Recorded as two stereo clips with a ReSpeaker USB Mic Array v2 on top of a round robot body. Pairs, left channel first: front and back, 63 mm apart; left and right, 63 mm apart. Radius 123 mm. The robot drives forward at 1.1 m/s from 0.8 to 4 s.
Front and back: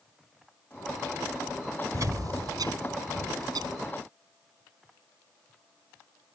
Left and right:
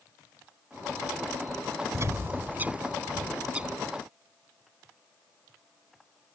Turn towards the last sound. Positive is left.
turn(degrees=-170)